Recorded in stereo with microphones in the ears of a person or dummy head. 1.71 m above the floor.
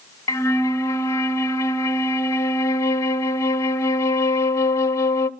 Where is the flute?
20° left (ahead or behind), 0.9 m.